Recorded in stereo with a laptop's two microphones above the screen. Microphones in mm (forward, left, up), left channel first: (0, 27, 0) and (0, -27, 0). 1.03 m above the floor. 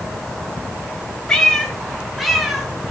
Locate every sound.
1.3 s a cat meowing: 10° left (ahead or behind), 3 m; by 2.7 s 5° right (ahead or behind), 4 m